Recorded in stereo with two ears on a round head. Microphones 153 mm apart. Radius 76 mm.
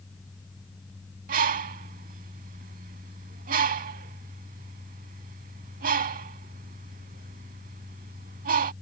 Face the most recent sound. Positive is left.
turn(degrees=-55)  # may be behind; listen again after turning